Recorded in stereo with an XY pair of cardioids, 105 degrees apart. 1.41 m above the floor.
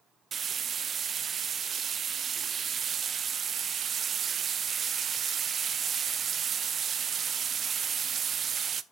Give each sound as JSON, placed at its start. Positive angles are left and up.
{"t": 0.3, "sound": "frying", "azimuth_deg": -45, "distance_m": 0.6}